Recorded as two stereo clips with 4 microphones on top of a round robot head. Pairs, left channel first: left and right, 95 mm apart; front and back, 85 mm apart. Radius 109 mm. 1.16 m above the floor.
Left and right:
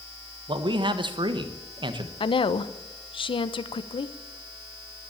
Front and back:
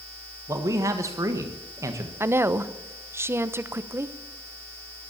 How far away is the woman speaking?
About 1.0 m.